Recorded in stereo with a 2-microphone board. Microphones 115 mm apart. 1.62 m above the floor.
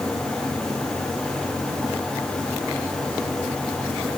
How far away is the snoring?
No snoring in this recording.